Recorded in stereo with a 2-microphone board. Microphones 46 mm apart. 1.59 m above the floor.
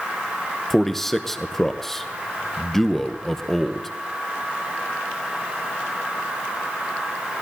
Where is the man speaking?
5° left (ahead or behind), 0.6 m.